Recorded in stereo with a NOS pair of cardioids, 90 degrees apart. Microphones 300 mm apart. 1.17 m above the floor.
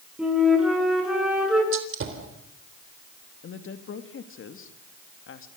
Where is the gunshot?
50° right, 3.5 m.